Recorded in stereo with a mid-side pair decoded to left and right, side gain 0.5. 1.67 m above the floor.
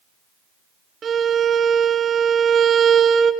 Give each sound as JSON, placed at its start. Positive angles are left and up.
{"t": 1.0, "sound": "a violin", "azimuth_deg": -45, "distance_m": 1.2}